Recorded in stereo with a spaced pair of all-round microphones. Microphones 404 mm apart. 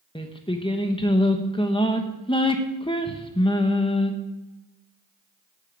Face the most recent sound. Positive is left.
turn(degrees=10)  # may be behind; listen again after turning